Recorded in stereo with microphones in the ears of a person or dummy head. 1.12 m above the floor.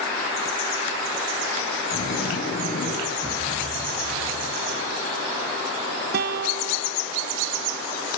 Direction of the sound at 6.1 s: 60° right (ahead or behind).